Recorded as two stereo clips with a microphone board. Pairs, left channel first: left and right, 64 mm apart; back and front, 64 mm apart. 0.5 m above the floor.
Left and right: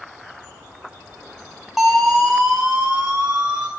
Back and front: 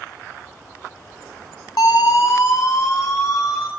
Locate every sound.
1.8 s a siren: 175° right, 6 m; by 3.7 s 160° right, 7.5 m